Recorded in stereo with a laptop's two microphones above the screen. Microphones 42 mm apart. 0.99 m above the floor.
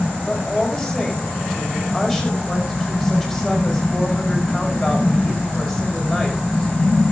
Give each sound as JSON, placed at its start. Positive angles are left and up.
{"t": 0.3, "sound": "a woman speaking", "side_deg": 0, "distance_m": 5.0}